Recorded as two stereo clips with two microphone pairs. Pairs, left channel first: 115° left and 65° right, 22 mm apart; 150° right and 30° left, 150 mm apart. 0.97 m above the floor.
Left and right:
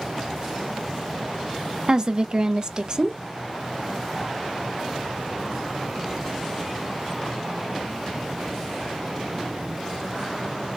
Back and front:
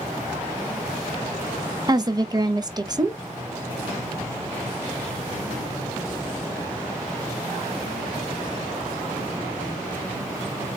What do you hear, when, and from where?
1.9 s a woman speaking: 30° right, 0.5 m